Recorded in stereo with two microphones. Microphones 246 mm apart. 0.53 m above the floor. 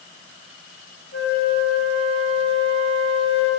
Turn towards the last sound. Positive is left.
turn(degrees=60)  # may be behind; listen again after turning